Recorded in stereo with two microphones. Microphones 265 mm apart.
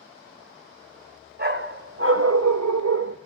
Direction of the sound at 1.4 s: 35° right (ahead or behind).